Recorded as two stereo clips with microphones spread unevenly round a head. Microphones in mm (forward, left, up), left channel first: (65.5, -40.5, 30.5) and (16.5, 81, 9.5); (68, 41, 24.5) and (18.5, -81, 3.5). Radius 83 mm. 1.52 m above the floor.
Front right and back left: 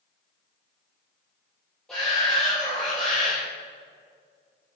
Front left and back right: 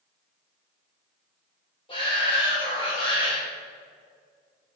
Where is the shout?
15° left, 2.5 m.